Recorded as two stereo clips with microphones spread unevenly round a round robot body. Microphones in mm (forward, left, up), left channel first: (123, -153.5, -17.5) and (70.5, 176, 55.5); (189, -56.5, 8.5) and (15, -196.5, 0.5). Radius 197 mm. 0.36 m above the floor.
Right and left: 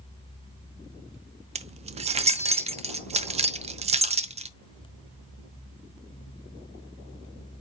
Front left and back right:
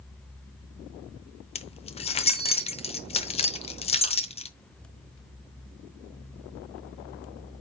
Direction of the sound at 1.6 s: 25° left.